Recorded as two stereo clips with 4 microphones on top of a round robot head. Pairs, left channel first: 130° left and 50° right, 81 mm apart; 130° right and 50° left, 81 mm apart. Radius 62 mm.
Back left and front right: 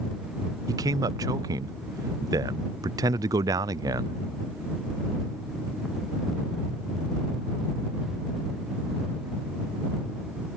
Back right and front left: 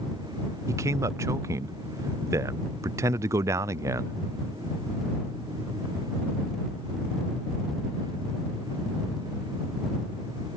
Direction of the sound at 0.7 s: 5° right.